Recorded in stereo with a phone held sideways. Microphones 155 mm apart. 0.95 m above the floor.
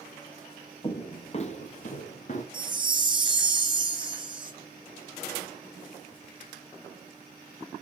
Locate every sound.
0.8 s footsteps: 30° left (ahead or behind), 1.1 m; by 2.4 s 50° left (ahead or behind), 1.9 m
2.5 s a chime: 30° right (ahead or behind), 1.3 m